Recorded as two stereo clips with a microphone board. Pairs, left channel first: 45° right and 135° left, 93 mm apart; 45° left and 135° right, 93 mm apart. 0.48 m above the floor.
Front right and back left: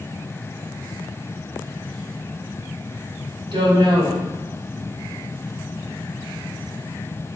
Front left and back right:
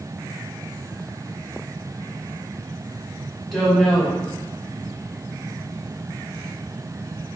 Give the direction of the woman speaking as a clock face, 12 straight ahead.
8 o'clock.